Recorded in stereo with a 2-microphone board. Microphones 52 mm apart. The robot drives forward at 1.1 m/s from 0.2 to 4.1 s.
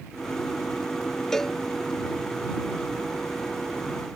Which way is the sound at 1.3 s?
10° left (ahead or behind).